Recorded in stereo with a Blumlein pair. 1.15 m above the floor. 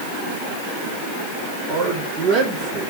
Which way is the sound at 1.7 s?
35° right.